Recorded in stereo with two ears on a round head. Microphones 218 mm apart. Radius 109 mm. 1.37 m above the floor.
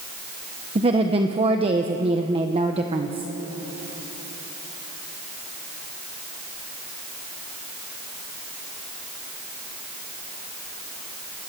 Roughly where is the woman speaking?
Right.